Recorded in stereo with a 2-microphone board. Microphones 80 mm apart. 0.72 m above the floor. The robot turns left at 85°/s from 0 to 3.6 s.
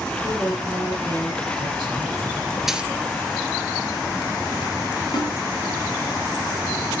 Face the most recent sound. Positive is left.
turn(degrees=75)  # may be behind; listen again after turning